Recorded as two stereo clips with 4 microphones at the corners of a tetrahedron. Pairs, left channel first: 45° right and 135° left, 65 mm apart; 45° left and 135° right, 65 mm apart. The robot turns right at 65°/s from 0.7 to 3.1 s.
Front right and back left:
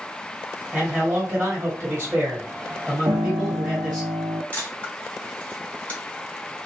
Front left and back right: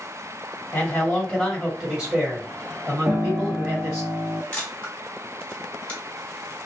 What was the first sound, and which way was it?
A man speaking, 80° left.